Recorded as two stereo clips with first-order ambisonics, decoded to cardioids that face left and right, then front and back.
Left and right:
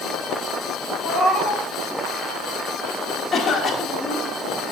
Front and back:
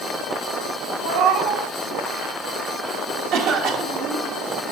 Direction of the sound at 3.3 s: 165° left.